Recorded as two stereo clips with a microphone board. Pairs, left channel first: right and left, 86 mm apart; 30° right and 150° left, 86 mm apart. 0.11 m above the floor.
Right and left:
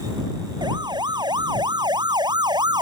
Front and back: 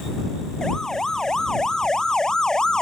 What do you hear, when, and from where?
0.6 s a siren: 55° left; by 2.8 s 50° left